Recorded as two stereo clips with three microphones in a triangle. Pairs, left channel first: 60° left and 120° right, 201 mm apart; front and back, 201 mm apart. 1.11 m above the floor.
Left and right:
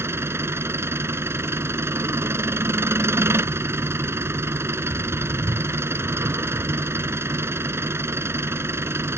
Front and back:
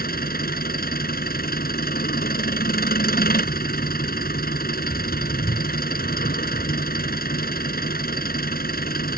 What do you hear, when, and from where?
0.0 s an engine running: 40° right